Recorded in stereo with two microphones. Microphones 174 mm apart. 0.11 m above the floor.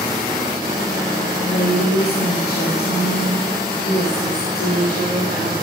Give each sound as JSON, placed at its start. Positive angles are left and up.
{"t": 1.4, "sound": "a woman speaking", "side_deg": 65, "distance_m": 3.5}